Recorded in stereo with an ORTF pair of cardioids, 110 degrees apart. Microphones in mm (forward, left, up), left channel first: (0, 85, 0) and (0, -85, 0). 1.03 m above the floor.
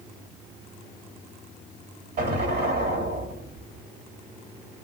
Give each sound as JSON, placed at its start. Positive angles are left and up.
{"t": 2.2, "sound": "an explosion", "azimuth_deg": -60, "distance_m": 1.9}